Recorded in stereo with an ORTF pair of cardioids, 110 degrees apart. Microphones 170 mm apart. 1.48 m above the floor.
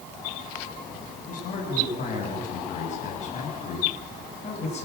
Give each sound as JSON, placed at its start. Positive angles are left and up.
{"t": 1.3, "sound": "a man speaking", "azimuth_deg": 50, "distance_m": 9.5}